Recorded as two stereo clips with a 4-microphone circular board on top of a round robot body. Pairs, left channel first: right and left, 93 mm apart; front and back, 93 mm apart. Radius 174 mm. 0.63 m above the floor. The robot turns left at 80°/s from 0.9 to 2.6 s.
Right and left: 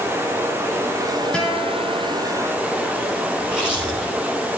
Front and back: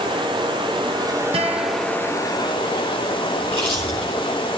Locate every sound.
0.0 s running water: 155° left, 2 m; by 4.6 s 20° left, 2 m
1.3 s a guitar: 170° right, 2.5 m; by 2.1 s 125° left, 2.5 m
3.4 s chewing: 10° left, 6.5 m